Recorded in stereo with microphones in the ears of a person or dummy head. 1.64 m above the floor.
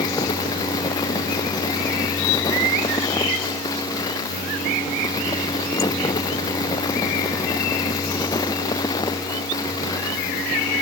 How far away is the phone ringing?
I don't hear a phone ringing.